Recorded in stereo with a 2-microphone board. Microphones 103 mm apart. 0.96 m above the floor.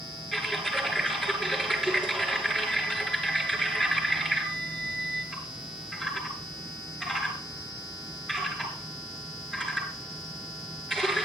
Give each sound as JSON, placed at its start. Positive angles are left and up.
{"t": 0.3, "sound": "typing on a keyboard", "side_deg": 5, "distance_m": 8.0}